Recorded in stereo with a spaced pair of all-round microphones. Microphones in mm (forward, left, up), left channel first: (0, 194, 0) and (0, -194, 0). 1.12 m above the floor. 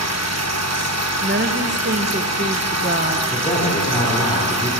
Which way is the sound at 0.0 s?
40° right (ahead or behind).